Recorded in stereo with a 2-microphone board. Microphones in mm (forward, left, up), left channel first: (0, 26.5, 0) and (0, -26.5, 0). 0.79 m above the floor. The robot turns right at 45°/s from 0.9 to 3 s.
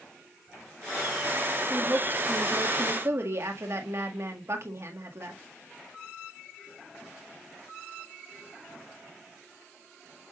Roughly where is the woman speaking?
Behind right.